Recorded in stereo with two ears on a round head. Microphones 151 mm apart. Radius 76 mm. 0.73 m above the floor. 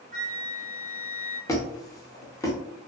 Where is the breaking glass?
No breaking glass in this recording.